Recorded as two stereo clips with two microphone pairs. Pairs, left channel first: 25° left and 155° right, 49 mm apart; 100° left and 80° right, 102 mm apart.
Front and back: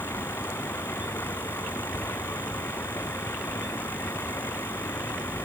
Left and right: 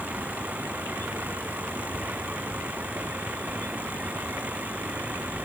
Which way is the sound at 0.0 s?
5° right.